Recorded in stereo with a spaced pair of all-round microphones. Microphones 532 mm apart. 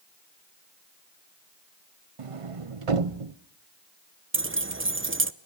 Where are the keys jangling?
25° right (ahead or behind), 0.6 m.